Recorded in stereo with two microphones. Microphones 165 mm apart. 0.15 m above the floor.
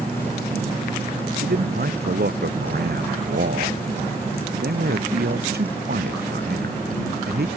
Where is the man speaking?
75° right (ahead or behind).